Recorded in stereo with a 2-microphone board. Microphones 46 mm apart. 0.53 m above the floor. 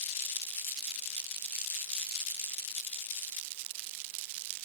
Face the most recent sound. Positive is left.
No sound to turn to.